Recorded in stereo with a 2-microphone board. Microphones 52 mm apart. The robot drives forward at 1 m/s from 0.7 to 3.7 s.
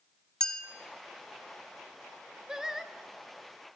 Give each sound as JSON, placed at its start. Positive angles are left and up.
{"t": 0.4, "sound": "a clink", "side_deg": 15, "distance_m": 1.1}
{"t": 2.5, "sound": "singing", "side_deg": -15, "distance_m": 0.6}